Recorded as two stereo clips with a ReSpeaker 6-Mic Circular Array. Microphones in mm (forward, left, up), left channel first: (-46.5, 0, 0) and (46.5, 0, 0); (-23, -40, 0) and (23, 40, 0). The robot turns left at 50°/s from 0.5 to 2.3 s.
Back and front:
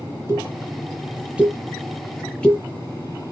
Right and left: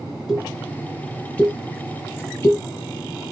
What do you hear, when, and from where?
0.3 s a pop: 20° right, 1.3 m; by 2.6 s 110° right, 1.3 m